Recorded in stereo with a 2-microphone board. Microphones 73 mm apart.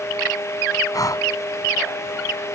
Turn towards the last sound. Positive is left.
turn(degrees=55)  # may be behind; listen again after turning